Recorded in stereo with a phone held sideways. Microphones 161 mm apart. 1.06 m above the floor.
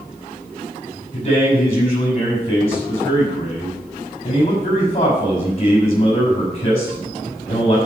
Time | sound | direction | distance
1.1 | a man speaking | 40° left (ahead or behind) | 6.5 m